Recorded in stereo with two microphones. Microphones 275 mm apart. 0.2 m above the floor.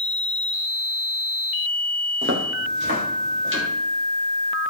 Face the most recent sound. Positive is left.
turn(degrees=-45)  # may be behind; listen again after turning